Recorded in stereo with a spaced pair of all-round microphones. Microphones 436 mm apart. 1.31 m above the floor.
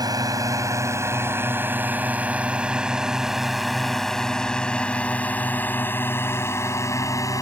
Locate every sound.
0.0 s a drone: 10° right (ahead or behind); by 7.4 s 5° left (ahead or behind)